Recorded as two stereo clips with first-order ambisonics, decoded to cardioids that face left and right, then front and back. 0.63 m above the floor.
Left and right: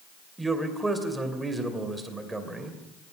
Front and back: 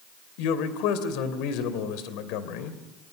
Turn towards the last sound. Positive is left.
turn(degrees=-10)